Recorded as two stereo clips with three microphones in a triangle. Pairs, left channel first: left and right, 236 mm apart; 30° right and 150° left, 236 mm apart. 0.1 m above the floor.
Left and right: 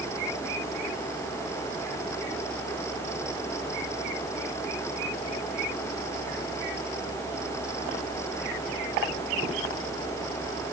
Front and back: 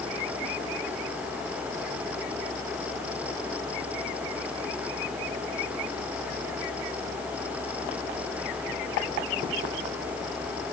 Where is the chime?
I don't hear a chime.